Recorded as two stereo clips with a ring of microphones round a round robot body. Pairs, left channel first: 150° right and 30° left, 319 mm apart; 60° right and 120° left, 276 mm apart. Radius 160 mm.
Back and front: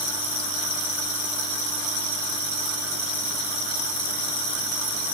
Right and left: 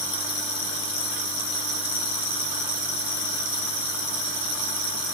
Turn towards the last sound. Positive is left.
No sound to turn to.